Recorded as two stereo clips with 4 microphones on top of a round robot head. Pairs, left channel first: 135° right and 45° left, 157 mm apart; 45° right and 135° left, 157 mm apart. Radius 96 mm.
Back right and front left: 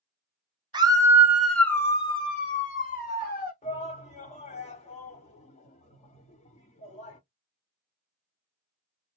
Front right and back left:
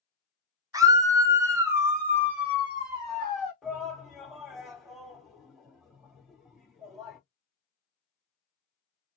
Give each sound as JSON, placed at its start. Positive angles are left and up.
{"t": 0.7, "sound": "a scream", "azimuth_deg": 80, "distance_m": 0.9}
{"t": 3.6, "sound": "a shout", "azimuth_deg": -135, "distance_m": 1.5}